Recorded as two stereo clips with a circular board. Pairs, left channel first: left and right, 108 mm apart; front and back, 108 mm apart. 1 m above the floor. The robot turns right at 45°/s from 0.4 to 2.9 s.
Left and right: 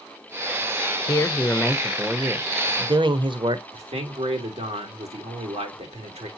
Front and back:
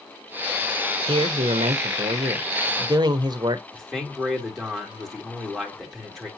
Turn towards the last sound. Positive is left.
turn(degrees=-85)